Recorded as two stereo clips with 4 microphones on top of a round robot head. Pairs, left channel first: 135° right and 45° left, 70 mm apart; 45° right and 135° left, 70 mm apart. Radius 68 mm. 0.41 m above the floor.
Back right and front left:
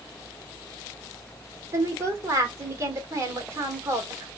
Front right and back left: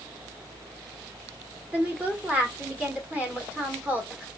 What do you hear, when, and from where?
1.7 s a woman speaking: 70° left, 1.6 m